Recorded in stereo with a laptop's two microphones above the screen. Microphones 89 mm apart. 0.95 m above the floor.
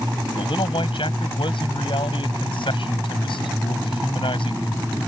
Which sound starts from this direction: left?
A man speaking, at 0.4 s.